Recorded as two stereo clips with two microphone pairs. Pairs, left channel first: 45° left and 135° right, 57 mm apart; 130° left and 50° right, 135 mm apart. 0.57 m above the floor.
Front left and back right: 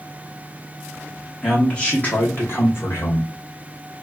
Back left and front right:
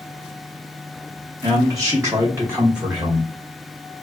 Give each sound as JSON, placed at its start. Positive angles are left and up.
{"t": 1.4, "sound": "a man speaking", "azimuth_deg": -30, "distance_m": 0.8}